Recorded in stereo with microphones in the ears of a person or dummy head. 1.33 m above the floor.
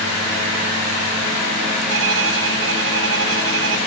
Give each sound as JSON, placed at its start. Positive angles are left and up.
{"t": 1.9, "sound": "a violin", "side_deg": -70}